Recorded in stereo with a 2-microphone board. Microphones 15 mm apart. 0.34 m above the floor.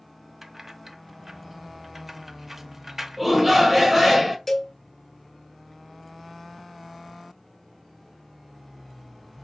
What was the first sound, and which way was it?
Keys jangling, 20° right (ahead or behind).